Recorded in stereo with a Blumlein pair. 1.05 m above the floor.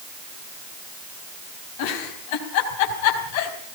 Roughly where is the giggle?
Ahead left.